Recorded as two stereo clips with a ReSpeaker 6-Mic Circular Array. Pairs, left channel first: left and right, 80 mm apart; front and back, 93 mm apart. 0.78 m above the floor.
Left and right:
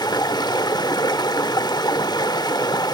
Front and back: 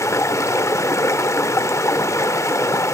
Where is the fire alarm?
I don't hear a fire alarm.